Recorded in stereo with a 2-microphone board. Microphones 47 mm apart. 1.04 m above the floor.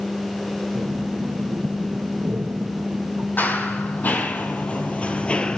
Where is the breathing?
60° right (ahead or behind), 1.7 m.